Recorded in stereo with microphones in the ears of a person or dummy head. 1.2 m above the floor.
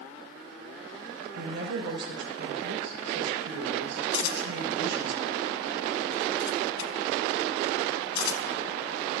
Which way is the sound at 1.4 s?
70° right (ahead or behind).